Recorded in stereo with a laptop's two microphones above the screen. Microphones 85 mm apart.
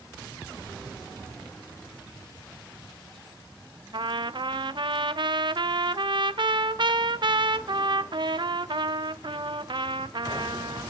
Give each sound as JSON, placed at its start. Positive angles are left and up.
{"t": 3.9, "sound": "a trumpet", "side_deg": -65, "distance_m": 0.6}